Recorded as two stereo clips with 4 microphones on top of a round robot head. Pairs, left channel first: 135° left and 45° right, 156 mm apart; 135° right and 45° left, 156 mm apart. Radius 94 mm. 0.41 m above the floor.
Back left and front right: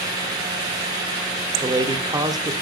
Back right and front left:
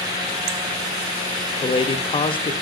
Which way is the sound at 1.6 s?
100° right.